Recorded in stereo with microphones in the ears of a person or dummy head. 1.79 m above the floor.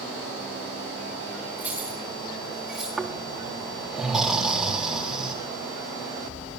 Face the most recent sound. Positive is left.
turn(degrees=-5)  # may be behind; listen again after turning